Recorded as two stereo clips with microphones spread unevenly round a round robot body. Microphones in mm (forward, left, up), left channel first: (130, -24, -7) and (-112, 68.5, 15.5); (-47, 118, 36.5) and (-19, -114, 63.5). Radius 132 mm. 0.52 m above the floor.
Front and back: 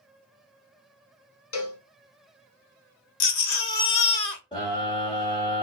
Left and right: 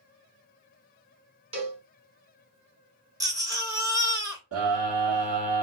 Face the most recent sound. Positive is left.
turn(degrees=-90)